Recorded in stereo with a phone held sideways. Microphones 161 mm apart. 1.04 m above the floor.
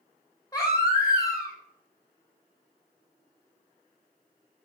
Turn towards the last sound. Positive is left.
turn(degrees=20)  # may be behind; listen again after turning